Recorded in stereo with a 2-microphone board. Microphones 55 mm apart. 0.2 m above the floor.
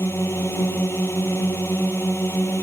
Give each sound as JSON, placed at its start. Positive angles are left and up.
{"t": 0.0, "sound": "a drone", "side_deg": 45}